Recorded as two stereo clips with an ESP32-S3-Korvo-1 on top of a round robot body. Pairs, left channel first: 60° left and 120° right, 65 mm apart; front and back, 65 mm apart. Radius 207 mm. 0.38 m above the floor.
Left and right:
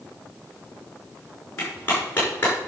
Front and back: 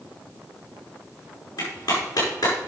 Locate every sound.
1.6 s a clap: straight ahead, 5.5 m